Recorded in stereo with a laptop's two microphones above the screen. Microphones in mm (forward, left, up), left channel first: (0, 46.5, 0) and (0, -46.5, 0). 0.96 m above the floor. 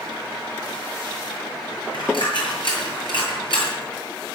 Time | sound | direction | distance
1.9 | a dropped coin | 60° left (ahead or behind) | 8 m